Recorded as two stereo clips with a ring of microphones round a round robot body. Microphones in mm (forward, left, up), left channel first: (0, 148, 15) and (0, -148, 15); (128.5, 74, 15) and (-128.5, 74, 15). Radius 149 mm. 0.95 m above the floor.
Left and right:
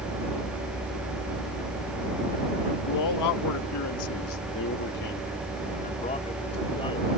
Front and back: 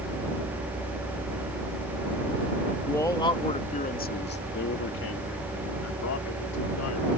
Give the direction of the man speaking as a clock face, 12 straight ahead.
9 o'clock.